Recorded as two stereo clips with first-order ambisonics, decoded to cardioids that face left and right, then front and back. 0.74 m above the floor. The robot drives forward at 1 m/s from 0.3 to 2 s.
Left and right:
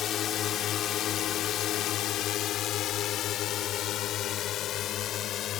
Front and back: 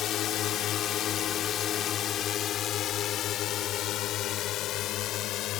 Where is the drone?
45° left; by 5.6 s 40° left.